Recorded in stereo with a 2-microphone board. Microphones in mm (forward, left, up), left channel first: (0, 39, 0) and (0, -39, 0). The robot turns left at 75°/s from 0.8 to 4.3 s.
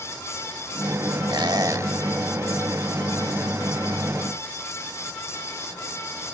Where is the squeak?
105° right, 1.1 m; by 1.9 s 150° right, 1.1 m.